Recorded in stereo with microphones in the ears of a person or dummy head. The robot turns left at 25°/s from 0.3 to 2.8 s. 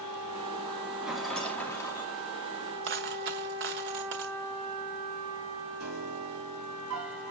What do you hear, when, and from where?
1.0 s a rattle: 15° right (ahead or behind), 2.5 m; by 2.1 s 15° left (ahead or behind), 2.5 m
2.8 s a dropped coin: 50° right (ahead or behind), 1.0 m
5.8 s a piano: 85° right, 5 m